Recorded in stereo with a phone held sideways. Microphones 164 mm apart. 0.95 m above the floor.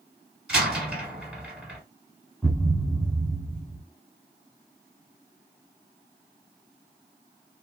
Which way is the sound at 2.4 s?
Centre (ahead or behind).